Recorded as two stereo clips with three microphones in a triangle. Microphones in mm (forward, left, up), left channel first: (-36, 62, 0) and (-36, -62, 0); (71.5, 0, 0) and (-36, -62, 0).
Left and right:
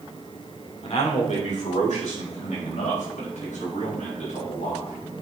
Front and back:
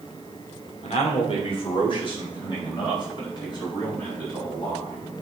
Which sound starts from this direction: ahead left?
A man speaking, at 0.8 s.